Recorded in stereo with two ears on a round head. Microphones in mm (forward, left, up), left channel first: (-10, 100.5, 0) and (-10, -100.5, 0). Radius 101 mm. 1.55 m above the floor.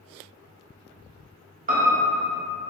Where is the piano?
35° right (ahead or behind), 0.7 m.